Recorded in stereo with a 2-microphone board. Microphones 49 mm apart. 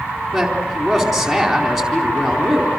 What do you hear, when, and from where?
0.3 s a man speaking: centre (ahead or behind), 4 m